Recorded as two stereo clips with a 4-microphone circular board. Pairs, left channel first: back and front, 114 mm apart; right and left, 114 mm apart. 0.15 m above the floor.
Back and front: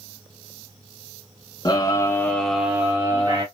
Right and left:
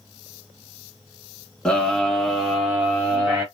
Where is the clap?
No clap in this recording.